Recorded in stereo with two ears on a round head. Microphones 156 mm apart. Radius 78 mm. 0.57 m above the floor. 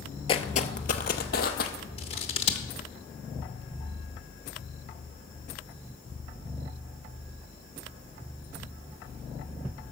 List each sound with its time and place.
0.3 s footsteps: 30° left (ahead or behind), 0.6 m; by 1.7 s 55° left (ahead or behind), 1.3 m
2.0 s scissors: 35° left (ahead or behind), 0.8 m